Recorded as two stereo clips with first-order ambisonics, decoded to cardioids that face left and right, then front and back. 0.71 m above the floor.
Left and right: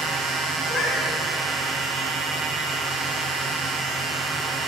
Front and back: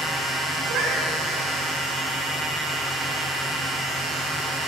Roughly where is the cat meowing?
Behind left.